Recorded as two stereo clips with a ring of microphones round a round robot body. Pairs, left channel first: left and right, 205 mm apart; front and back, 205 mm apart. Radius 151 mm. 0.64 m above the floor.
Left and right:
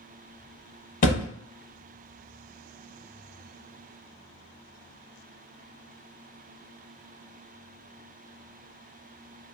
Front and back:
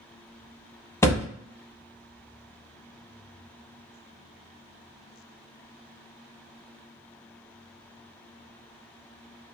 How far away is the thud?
About 0.6 m.